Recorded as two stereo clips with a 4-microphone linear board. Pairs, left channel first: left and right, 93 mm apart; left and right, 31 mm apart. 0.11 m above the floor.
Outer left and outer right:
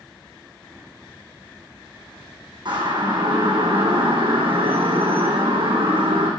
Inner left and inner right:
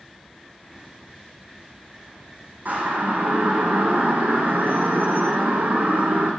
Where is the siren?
55° right (ahead or behind), 6 m; by 6.3 s 75° right (ahead or behind), 6 m.